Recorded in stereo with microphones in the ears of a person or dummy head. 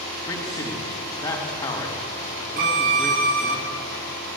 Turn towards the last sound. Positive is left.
turn(degrees=-45)  # may be behind; listen again after turning